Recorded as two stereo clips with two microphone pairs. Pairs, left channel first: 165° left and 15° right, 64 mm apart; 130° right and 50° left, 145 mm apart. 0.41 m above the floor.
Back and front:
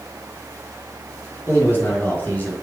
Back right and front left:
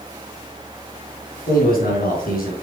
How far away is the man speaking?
About 4.5 m.